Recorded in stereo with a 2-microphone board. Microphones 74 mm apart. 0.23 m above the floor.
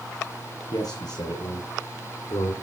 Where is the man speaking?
65° left (ahead or behind), 7.5 m; by 2.5 s 60° left (ahead or behind), 8.5 m.